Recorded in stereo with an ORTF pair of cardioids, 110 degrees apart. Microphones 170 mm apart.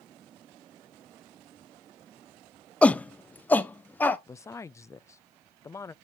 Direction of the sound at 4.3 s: 15° left.